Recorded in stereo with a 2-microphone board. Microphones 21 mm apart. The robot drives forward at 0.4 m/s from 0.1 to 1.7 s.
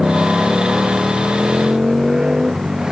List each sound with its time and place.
0.0 s a motorcycle: 40° right (ahead or behind); by 2.9 s 35° right (ahead or behind)